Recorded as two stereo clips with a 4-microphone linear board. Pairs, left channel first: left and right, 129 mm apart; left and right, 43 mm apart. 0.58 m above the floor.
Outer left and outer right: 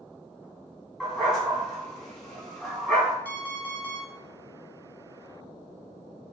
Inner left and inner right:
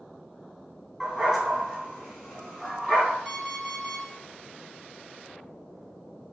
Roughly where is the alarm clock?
Centre.